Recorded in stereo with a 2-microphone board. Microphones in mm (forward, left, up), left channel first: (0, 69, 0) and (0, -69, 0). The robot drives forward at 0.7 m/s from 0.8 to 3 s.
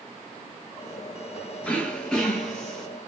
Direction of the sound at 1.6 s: 10° left (ahead or behind).